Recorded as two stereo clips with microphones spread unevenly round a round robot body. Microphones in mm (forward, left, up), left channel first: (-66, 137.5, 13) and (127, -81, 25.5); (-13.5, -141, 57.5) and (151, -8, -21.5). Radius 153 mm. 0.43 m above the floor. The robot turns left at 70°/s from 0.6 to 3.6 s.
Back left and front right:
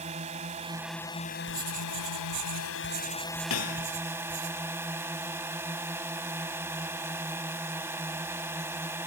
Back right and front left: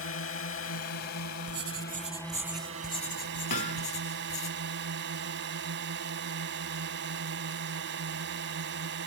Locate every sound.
0.0 s a drone: 115° right; by 9.1 s 35° left
1.5 s writing: 35° left; by 4.5 s 115° right
3.5 s hammering: straight behind; by 3.9 s 175° left